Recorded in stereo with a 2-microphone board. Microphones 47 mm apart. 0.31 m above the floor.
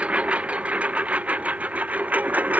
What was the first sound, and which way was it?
A lawn mower, 30° right (ahead or behind).